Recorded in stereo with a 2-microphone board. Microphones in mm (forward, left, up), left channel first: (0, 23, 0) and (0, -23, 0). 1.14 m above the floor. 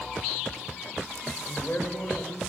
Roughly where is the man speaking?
Left.